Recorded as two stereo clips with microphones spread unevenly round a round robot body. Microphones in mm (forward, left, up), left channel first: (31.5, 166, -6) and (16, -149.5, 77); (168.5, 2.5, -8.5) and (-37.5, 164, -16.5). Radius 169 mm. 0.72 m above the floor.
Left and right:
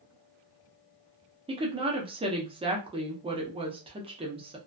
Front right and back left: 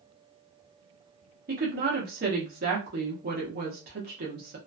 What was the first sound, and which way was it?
A woman speaking, 175° right.